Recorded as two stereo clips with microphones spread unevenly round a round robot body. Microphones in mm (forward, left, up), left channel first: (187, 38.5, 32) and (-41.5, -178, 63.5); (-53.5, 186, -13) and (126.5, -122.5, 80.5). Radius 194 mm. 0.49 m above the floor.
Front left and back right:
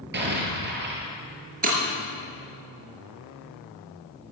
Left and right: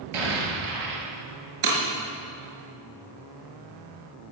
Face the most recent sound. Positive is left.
turn(degrees=-75)